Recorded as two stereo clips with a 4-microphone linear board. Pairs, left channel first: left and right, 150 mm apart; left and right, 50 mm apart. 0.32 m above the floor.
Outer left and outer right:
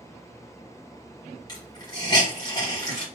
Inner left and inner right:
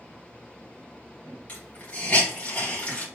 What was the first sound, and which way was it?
A hiss, 25° left (ahead or behind).